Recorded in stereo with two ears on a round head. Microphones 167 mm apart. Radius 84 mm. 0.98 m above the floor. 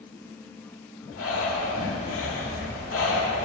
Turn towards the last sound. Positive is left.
turn(degrees=90)